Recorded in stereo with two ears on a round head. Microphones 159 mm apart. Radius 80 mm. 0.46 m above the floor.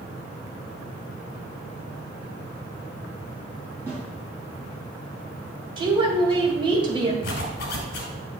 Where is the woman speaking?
30° right (ahead or behind), 1.8 m.